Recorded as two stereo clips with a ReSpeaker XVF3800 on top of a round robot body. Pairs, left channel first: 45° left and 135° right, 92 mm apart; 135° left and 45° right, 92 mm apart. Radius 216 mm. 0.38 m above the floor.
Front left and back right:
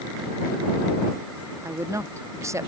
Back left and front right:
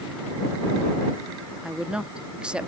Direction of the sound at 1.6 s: 115° right.